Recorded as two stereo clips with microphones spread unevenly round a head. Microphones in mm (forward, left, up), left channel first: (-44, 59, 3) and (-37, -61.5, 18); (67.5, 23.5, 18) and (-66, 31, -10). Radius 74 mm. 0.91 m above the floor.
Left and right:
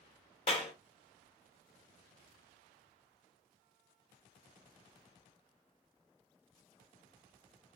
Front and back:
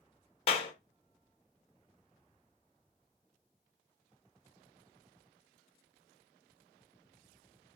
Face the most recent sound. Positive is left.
turn(degrees=45)